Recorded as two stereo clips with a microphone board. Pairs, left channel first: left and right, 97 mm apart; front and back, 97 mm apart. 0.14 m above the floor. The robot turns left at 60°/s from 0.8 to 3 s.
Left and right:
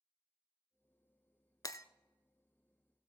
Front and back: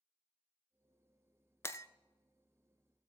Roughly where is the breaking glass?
Ahead left.